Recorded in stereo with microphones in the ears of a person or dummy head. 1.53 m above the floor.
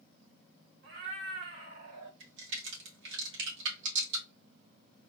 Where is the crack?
75° right (ahead or behind), 2 m.